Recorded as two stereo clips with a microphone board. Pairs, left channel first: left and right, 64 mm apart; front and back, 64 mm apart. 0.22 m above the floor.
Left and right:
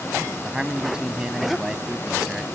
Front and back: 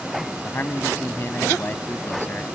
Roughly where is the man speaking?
Ahead.